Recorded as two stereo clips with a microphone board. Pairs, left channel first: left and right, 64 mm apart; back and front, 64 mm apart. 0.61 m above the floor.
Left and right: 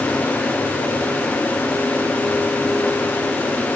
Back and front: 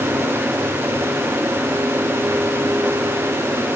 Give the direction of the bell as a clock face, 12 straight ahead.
No bell in this recording.